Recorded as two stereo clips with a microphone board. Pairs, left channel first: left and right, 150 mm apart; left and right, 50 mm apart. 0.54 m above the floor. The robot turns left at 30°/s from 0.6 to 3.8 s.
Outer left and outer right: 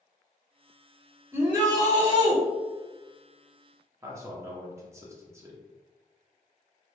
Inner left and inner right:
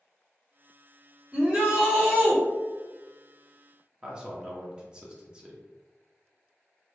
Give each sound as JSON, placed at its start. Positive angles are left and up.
{"t": 1.3, "sound": "a shout", "azimuth_deg": -40, "distance_m": 1.6}
{"t": 4.0, "sound": "a man speaking", "side_deg": -20, "distance_m": 0.7}